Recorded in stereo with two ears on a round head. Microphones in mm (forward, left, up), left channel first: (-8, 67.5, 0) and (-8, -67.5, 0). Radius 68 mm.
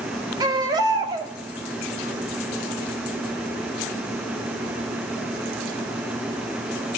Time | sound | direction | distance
0.4 | a baby crying | 25° right (ahead or behind) | 1.3 m